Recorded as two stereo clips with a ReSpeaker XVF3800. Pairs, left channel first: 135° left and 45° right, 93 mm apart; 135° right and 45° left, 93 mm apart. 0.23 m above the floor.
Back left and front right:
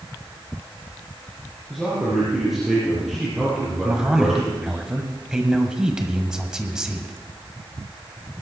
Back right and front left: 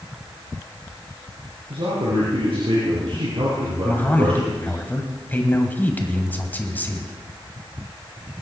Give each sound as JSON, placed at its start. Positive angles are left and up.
{"t": 1.7, "sound": "a man speaking", "azimuth_deg": 40, "distance_m": 6.0}
{"t": 3.8, "sound": "a man speaking", "azimuth_deg": -115, "distance_m": 1.6}